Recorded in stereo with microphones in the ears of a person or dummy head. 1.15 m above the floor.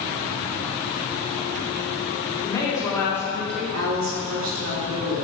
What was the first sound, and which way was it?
A woman speaking, 15° left (ahead or behind).